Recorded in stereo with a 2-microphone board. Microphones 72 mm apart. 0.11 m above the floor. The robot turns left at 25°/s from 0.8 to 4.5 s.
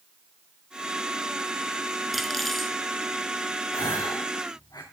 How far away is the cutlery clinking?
About 0.8 m.